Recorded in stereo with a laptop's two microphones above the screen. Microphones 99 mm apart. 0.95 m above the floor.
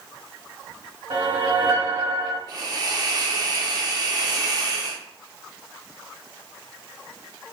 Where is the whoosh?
65° right (ahead or behind), 1.4 m.